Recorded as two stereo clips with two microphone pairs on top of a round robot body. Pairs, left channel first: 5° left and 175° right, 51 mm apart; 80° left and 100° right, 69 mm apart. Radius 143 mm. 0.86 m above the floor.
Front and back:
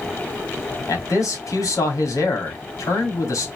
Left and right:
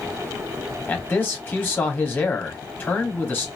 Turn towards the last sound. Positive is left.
turn(degrees=20)